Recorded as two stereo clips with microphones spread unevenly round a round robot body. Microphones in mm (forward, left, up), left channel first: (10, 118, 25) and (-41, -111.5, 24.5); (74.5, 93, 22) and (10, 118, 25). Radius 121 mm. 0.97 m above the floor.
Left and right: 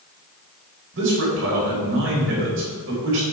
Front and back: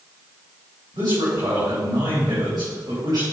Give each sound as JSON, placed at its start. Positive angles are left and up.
{"t": 0.9, "sound": "a man speaking", "azimuth_deg": -140, "distance_m": 4.0}